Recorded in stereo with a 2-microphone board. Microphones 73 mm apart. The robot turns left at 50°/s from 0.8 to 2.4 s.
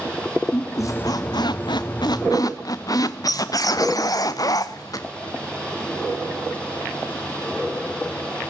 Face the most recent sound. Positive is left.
turn(degrees=55)